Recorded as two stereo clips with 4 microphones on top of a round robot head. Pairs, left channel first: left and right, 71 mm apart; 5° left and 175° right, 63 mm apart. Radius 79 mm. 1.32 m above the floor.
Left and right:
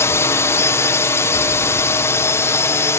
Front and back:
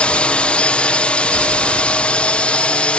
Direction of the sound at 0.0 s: 70° left.